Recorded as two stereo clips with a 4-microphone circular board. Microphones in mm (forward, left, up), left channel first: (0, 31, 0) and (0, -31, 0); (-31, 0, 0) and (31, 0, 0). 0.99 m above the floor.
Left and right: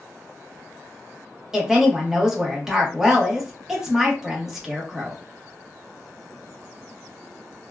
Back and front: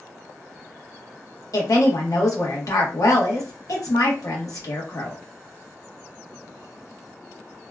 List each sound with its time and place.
1.5 s a woman speaking: 170° right, 1.0 m